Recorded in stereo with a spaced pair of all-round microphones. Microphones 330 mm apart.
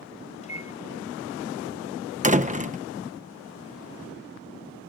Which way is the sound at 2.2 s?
25° right (ahead or behind).